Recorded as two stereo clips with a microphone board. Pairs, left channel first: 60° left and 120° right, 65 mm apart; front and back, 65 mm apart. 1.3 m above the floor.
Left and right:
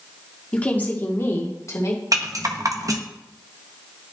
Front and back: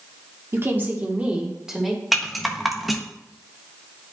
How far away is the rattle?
About 0.8 m.